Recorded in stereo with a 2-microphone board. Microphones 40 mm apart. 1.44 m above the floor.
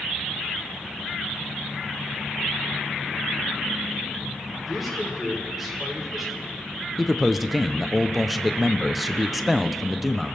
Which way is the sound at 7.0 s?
Centre (ahead or behind).